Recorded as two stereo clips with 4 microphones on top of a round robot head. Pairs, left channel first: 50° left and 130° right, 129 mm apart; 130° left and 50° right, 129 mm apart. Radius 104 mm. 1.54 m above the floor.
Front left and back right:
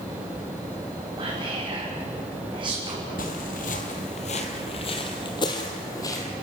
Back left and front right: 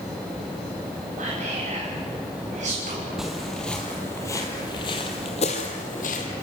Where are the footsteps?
35° left, 1.9 m; by 6.3 s 110° left, 2 m.